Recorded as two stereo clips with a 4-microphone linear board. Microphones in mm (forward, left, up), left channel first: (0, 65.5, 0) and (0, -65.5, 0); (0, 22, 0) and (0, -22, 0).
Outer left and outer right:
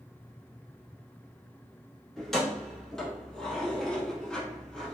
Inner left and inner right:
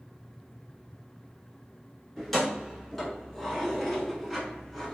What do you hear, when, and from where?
2.2 s keys jangling: 5° left (ahead or behind), 1.3 m